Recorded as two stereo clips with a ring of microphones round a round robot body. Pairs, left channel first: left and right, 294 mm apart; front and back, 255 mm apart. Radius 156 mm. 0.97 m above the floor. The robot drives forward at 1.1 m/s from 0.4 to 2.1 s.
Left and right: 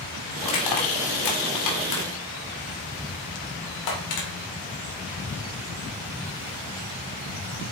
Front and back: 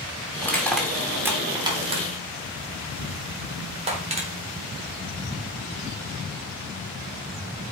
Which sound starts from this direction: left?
Crushing, at 0.4 s.